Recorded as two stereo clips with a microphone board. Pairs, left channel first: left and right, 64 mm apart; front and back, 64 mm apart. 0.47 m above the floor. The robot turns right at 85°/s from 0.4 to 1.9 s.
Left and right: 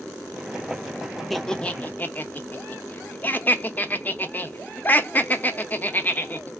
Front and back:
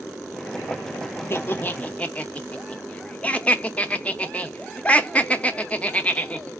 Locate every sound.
1.3 s laughter: 5° left, 0.8 m; by 6.5 s 55° left, 0.8 m